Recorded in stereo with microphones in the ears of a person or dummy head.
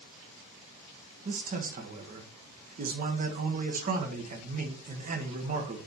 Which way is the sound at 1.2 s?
40° right (ahead or behind).